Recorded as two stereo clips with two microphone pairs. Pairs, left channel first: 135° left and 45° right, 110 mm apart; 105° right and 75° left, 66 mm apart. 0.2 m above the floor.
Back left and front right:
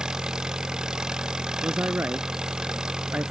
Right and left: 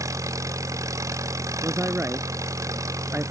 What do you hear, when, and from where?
0.0 s an engine running: 40° left
1.6 s a man speaking: 25° left